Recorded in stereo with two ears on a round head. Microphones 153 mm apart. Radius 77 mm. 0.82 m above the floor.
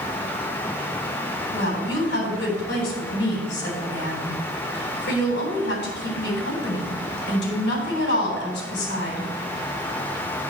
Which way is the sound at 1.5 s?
70° left (ahead or behind).